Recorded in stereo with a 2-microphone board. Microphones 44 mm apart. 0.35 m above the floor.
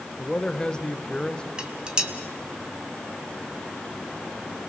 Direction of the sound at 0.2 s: 15° left (ahead or behind).